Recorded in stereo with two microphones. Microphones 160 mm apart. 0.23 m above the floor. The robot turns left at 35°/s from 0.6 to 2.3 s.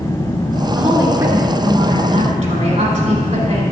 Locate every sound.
0.8 s a woman speaking: 5° right, 3.5 m; by 3.6 s 60° right, 3.5 m